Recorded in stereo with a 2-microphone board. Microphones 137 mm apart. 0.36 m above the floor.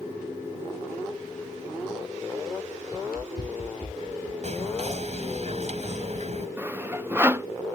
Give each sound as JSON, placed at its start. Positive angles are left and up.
{"t": 2.9, "sound": "running footsteps", "side_deg": 85}
{"t": 4.4, "sound": "whispering", "side_deg": -55}
{"t": 6.6, "sound": "sawing", "side_deg": -15}